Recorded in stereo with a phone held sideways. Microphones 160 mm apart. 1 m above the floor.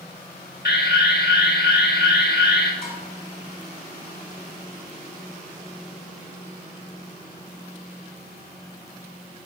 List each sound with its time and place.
0.7 s an alarm: 75° left (ahead or behind), 1.6 m
2.8 s dishes clattering: 70° left (ahead or behind), 3.5 m